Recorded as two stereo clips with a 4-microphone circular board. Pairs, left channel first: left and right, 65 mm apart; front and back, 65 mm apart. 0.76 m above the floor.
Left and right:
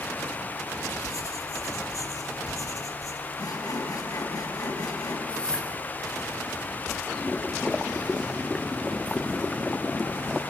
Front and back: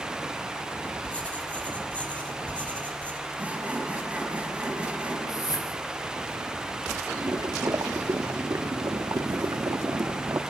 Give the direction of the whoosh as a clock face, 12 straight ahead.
11 o'clock.